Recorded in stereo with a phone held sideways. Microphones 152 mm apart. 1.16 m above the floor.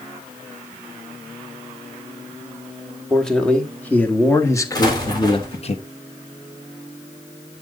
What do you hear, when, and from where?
3.1 s a man speaking: 5° left (ahead or behind), 2 m; by 5.8 s 45° left (ahead or behind), 1.0 m
4.8 s an explosion: 25° left (ahead or behind), 3.5 m